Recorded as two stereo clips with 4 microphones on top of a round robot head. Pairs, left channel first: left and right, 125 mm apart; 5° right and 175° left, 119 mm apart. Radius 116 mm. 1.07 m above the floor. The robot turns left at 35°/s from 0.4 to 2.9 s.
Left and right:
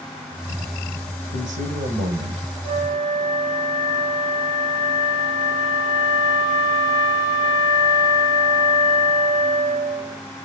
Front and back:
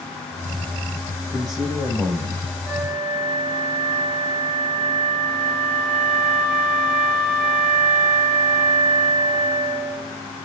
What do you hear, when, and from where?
1.3 s a man speaking: 90° right, 4 m; by 2.5 s 130° right, 4 m
2.6 s a flute: 95° right, 5 m; by 10.2 s 100° right, 5 m